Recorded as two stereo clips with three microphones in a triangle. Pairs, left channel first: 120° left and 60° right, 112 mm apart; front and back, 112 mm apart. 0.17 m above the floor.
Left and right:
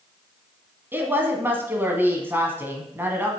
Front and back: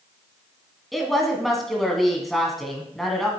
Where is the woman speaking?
85° right, 1.4 m.